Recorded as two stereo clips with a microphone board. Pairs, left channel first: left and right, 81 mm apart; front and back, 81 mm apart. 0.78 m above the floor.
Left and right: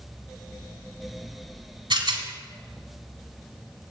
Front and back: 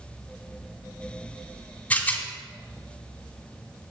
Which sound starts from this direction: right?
A rattle, at 1.9 s.